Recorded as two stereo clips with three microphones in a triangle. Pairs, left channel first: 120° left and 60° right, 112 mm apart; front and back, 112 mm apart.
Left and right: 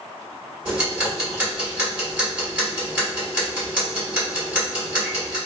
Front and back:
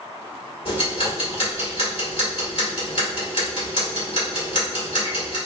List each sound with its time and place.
0.7 s ticking: 10° left, 1.9 m